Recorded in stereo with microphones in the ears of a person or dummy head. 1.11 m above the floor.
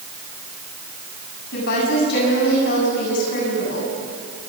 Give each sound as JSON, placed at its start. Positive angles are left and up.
{"t": 1.5, "sound": "a woman speaking", "side_deg": 65, "distance_m": 7.5}